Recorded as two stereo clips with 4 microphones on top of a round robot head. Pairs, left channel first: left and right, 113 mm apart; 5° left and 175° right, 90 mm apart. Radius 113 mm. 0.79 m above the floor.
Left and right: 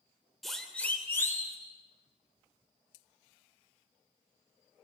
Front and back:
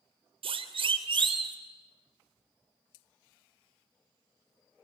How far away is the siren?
About 3 m.